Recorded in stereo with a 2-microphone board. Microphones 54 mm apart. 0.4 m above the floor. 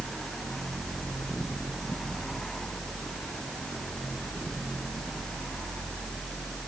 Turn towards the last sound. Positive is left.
No sound to turn to.